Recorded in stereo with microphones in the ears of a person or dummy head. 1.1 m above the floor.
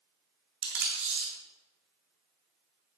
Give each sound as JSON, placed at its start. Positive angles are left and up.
{"t": 0.6, "sound": "tape being pulled", "side_deg": -55, "distance_m": 2.0}